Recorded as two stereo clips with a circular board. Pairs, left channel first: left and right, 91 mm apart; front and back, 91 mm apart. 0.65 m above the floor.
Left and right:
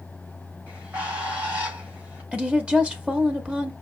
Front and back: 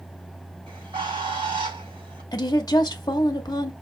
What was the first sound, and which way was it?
A bird, 165° right.